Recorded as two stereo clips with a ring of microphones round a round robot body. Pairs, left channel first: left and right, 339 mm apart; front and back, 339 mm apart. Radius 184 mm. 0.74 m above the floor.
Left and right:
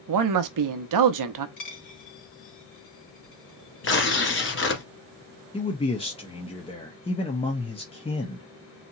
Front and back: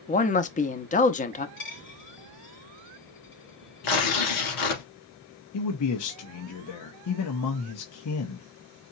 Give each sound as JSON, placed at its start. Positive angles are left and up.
{"t": 0.1, "sound": "a man speaking", "azimuth_deg": -65, "distance_m": 0.8}
{"t": 1.6, "sound": "a dropped coin", "azimuth_deg": 60, "distance_m": 2.5}
{"t": 3.8, "sound": "tearing paper", "azimuth_deg": 35, "distance_m": 1.7}
{"t": 5.5, "sound": "a man speaking", "azimuth_deg": 20, "distance_m": 0.8}